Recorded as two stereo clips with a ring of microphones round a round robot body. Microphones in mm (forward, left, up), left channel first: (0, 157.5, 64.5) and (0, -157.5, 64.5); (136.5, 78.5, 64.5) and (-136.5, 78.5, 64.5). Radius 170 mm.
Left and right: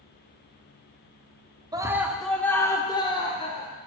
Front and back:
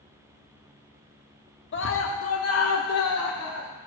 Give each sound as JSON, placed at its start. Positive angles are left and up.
{"t": 1.7, "sound": "a scream", "azimuth_deg": -15, "distance_m": 0.9}